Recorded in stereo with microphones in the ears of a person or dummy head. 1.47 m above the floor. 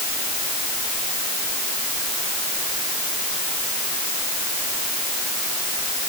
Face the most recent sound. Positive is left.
No sound to turn to.